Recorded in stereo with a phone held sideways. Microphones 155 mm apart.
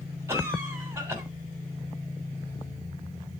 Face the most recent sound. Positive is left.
turn(degrees=-15)  # may be behind; listen again after turning